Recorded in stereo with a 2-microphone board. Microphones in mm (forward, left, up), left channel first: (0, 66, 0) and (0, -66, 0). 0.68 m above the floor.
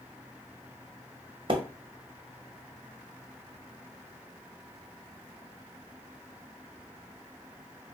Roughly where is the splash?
Right.